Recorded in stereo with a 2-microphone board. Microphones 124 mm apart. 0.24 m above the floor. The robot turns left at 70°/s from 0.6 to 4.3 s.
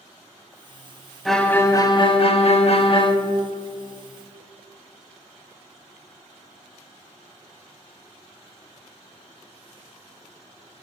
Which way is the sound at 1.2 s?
Straight behind.